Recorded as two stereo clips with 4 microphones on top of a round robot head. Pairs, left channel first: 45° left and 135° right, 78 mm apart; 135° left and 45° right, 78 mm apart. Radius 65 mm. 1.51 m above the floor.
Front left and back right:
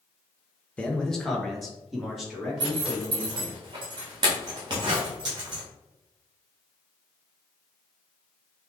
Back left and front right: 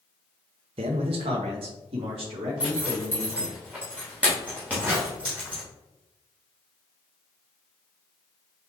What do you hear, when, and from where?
0.8 s a man speaking: 30° right, 0.5 m; by 3.6 s 50° right, 3 m
2.6 s a zipper: 115° right, 1.0 m